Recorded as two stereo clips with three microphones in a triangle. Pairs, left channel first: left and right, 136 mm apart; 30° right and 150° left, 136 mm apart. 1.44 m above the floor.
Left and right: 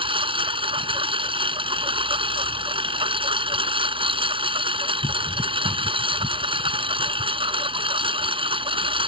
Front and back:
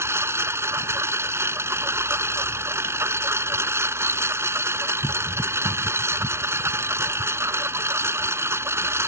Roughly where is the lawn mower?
Behind right.